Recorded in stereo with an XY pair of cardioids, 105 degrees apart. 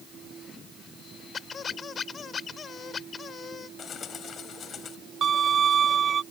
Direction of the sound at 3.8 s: 55° left.